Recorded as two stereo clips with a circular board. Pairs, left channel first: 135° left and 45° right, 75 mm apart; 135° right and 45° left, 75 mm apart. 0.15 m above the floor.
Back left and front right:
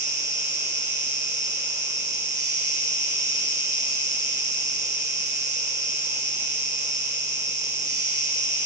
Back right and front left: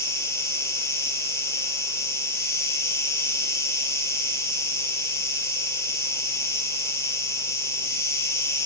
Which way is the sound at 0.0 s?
90° right.